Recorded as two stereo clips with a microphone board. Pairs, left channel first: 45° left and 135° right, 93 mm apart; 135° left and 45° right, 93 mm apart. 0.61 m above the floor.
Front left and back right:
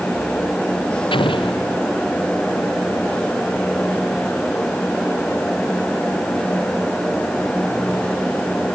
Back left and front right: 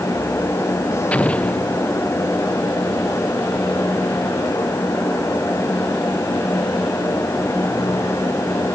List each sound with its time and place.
1.1 s an explosion: 60° left